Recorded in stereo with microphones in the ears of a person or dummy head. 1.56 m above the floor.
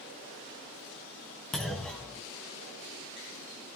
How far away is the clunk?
About 2 m.